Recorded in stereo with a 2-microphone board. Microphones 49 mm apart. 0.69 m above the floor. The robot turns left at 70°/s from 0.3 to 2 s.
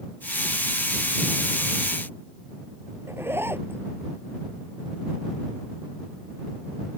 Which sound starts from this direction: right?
A zipper, at 3.1 s.